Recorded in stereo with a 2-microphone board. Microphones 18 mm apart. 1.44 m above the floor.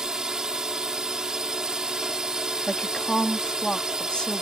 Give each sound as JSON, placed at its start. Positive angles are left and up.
{"t": 0.0, "sound": "a drone", "side_deg": -45}
{"t": 2.7, "sound": "a woman speaking", "side_deg": 50}